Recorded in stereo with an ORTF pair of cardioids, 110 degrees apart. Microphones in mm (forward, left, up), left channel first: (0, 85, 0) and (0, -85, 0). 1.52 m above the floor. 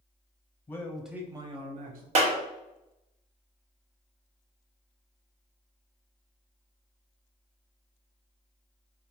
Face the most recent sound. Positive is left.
turn(degrees=-45)